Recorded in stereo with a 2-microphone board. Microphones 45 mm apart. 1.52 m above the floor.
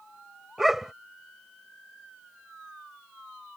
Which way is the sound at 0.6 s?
5° right (ahead or behind).